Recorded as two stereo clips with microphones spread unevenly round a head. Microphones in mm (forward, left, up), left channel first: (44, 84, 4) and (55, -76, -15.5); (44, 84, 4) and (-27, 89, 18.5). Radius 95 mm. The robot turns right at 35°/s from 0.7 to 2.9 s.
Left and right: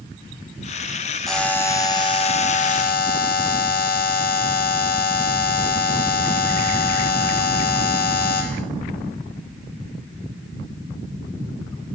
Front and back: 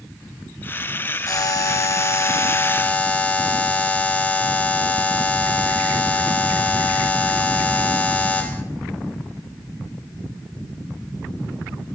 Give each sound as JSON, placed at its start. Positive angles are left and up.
{"t": 1.3, "sound": "a buzzer", "azimuth_deg": 5, "distance_m": 1.6}